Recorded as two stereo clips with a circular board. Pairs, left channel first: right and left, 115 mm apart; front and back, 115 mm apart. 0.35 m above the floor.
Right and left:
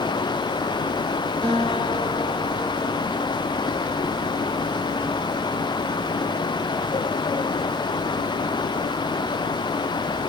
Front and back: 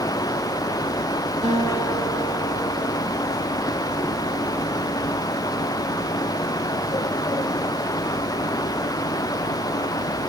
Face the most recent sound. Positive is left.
turn(degrees=-170)